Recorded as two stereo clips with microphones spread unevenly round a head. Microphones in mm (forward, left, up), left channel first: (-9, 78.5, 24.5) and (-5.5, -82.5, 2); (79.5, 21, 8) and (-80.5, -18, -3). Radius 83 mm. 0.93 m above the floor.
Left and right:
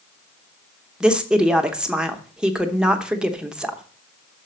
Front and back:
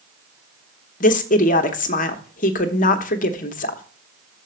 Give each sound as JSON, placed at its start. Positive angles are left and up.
{"t": 1.0, "sound": "a woman speaking", "azimuth_deg": -15, "distance_m": 0.8}